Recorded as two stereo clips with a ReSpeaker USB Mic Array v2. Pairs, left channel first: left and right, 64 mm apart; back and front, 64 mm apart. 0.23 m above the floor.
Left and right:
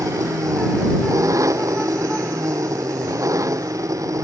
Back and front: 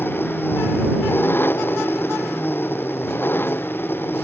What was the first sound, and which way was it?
An engine running, 125° right.